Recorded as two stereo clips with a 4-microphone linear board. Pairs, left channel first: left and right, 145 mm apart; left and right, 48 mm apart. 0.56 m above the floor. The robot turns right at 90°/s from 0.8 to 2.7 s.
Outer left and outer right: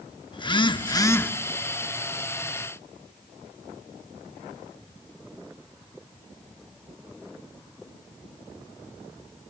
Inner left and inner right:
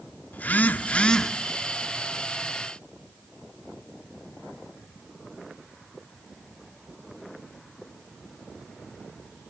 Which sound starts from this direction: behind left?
A phone buzzing, at 0.3 s.